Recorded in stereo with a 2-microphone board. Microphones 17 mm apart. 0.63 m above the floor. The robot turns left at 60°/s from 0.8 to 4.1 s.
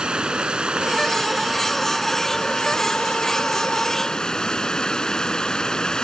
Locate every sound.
0.0 s running water: 120° right; by 6.0 s 40° left